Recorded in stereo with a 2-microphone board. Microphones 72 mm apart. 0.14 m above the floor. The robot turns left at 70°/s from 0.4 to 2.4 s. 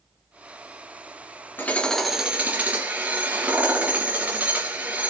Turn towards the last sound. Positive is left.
turn(degrees=-25)